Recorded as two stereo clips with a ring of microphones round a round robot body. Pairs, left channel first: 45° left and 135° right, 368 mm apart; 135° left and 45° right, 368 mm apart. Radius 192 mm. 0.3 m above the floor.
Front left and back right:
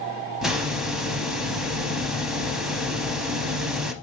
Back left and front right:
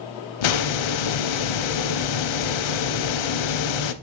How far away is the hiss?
About 0.7 m.